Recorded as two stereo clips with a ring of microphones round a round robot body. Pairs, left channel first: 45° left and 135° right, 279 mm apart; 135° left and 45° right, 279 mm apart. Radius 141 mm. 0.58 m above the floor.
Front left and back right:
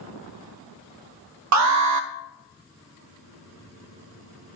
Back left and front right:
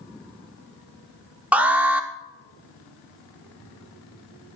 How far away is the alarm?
About 0.9 m.